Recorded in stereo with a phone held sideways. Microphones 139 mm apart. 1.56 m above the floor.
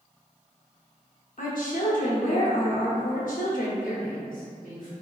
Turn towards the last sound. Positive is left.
turn(degrees=70)  # may be behind; listen again after turning